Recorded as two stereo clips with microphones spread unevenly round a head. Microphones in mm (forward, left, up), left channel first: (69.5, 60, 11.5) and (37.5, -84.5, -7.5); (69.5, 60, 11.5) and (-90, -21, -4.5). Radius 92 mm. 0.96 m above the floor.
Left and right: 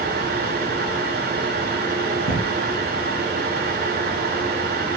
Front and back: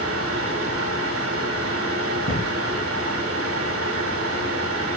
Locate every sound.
0.0 s a fan: 145° right, 1.9 m
2.3 s an explosion: 95° left, 4.5 m